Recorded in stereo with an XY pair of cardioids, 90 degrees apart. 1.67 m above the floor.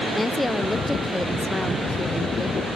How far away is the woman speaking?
About 0.8 m.